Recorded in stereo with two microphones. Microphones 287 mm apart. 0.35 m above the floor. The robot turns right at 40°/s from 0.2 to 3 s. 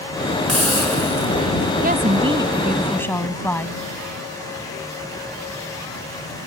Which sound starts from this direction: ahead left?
A hiss, at 0.5 s.